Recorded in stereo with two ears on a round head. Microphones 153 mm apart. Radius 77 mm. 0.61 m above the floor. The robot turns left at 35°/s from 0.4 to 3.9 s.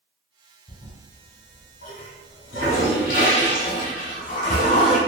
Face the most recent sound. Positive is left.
turn(degrees=45)  # may be behind; listen again after turning